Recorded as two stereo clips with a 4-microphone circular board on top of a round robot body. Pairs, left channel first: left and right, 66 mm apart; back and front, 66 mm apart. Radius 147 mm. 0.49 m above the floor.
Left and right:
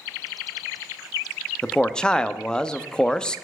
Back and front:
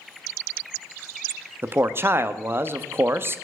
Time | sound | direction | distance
1.6 | a man speaking | 20° left | 0.7 m